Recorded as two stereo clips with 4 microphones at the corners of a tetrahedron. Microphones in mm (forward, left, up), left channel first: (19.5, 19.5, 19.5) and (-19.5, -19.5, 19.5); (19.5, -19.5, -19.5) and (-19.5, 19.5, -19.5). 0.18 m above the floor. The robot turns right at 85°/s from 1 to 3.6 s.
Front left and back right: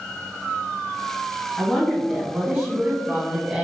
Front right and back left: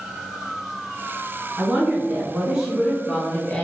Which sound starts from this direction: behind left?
A woman speaking, at 1.6 s.